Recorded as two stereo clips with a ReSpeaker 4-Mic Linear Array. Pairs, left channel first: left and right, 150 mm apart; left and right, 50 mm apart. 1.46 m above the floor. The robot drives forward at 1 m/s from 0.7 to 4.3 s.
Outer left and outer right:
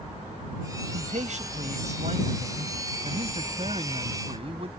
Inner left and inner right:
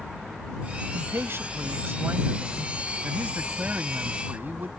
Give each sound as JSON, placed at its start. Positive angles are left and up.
{"t": 0.9, "sound": "a man speaking", "side_deg": -55}